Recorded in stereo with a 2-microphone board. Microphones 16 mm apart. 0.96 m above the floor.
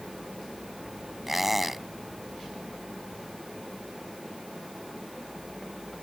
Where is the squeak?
5° right (ahead or behind).